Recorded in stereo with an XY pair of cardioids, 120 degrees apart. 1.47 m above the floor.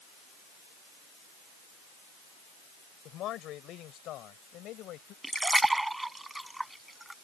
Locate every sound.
3.0 s a man speaking: 70° left; by 5.1 s 75° left
5.2 s a splash: 10° right